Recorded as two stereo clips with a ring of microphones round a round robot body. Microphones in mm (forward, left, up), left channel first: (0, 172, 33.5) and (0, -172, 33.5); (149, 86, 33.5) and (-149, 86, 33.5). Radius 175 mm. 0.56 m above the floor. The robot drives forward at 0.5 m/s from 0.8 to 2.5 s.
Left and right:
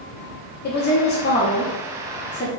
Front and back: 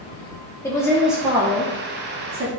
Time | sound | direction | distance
0.6 | a woman speaking | 70° left | 0.8 m